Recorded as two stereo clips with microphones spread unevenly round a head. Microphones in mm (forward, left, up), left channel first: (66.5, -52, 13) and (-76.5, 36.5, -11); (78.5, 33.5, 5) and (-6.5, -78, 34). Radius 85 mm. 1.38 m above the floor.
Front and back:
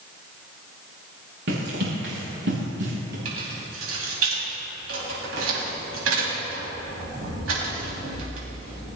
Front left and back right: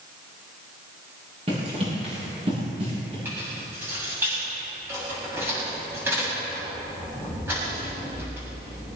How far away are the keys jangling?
About 7 m.